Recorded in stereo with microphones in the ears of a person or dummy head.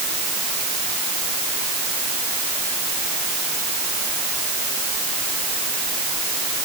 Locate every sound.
Only background noise.